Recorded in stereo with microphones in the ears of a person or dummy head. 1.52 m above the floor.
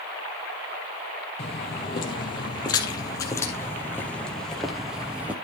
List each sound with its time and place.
1.4 s footsteps: 35° left (ahead or behind), 3 m; by 5.3 s 10° right (ahead or behind), 2.0 m